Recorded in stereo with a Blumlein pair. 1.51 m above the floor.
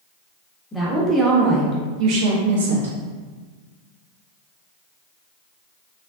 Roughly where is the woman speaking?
Ahead.